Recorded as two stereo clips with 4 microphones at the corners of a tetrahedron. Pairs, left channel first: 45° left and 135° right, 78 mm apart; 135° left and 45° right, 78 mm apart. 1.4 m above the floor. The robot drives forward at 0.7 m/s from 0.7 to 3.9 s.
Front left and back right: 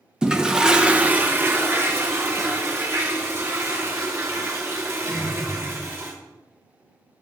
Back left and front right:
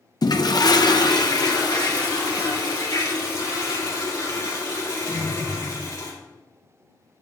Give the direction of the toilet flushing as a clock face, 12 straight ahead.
7 o'clock.